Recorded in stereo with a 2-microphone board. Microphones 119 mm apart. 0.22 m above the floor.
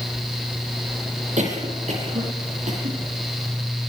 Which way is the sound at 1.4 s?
80° right.